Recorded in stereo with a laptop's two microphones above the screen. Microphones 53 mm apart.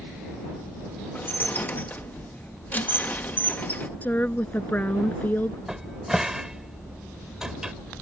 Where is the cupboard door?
10° right (ahead or behind).